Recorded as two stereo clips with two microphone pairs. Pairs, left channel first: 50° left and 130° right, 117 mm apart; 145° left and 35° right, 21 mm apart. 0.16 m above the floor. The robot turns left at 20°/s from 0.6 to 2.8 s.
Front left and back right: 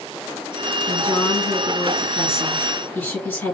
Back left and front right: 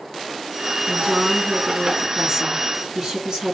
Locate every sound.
0.9 s a woman speaking: 25° left, 1.7 m; by 3.5 s 10° right, 1.7 m